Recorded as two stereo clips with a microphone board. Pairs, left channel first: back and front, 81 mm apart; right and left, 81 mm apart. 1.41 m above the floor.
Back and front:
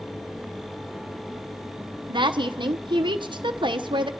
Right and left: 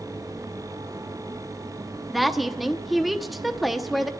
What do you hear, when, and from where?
2.1 s a woman speaking: straight ahead, 0.8 m